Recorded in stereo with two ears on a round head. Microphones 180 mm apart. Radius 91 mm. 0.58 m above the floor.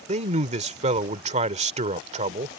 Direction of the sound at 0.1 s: 35° right (ahead or behind).